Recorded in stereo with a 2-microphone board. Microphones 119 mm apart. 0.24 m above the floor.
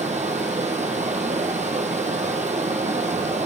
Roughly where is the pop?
No pop in this recording.